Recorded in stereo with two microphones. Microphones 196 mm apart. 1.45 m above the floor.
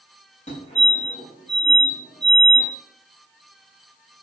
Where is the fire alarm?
35° left (ahead or behind), 5.5 m.